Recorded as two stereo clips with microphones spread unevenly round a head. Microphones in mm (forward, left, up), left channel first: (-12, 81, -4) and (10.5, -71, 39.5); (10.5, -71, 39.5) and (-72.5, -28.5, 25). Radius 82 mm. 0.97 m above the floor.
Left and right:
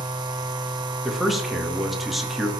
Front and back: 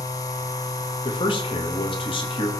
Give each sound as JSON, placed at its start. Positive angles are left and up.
{"t": 0.0, "sound": "a machine running", "azimuth_deg": -50, "distance_m": 0.9}
{"t": 1.1, "sound": "a man speaking", "azimuth_deg": 15, "distance_m": 1.7}